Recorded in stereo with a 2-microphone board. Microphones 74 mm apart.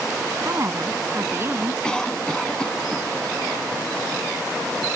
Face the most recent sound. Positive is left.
turn(degrees=10)  # may be behind; listen again after turning